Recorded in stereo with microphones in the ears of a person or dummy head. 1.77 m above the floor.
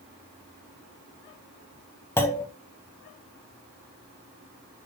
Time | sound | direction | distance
2.2 | a clunk | 15° left (ahead or behind) | 0.9 m